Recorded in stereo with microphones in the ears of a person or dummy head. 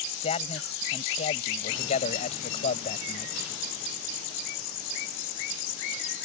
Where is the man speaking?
35° left (ahead or behind).